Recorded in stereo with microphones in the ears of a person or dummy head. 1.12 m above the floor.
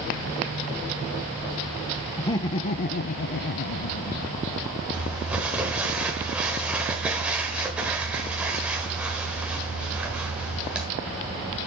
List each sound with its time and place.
2.2 s laughter: 15° left (ahead or behind), 0.6 m; by 4.4 s 40° left (ahead or behind), 0.9 m
4.9 s crumpling: 5° right (ahead or behind), 1.3 m